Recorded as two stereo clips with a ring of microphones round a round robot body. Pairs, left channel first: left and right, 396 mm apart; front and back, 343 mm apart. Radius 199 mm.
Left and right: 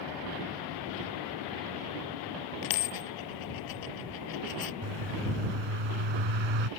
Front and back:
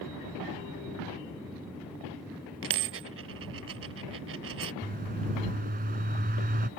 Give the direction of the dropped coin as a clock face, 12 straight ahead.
8 o'clock.